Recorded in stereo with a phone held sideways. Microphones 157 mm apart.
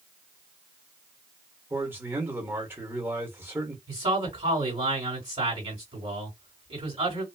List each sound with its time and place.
1.7 s a man speaking: 15° right (ahead or behind), 1.4 m
3.9 s a man speaking: 35° right (ahead or behind), 2 m